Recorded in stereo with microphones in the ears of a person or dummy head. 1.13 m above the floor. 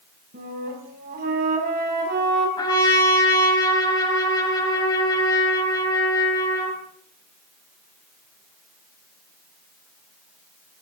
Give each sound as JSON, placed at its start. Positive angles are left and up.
{"t": 0.3, "sound": "a flute", "side_deg": -45, "distance_m": 5.5}
{"t": 2.6, "sound": "a trumpet", "side_deg": 25, "distance_m": 6.0}